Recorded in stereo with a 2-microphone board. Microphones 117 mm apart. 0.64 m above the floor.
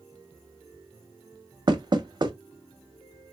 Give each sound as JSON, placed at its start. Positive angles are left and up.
{"t": 1.7, "sound": "knocking", "side_deg": -40, "distance_m": 0.5}